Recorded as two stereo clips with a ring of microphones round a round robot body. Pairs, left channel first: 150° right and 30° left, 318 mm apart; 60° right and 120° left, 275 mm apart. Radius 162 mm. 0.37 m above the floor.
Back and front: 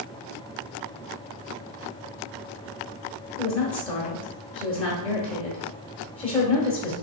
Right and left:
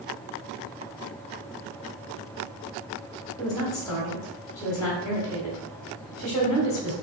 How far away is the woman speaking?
About 1.2 m.